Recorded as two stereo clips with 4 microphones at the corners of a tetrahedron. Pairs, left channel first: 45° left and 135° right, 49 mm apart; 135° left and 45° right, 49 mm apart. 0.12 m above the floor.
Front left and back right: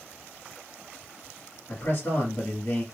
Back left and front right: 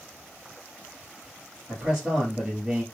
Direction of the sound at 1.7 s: 25° left.